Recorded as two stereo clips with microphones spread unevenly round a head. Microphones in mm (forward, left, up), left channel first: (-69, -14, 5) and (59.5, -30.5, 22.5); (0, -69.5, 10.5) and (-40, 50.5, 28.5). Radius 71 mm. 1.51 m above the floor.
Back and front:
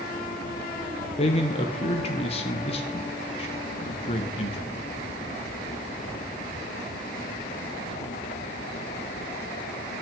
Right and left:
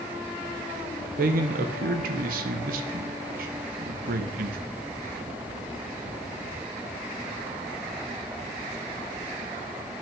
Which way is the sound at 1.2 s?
120° left.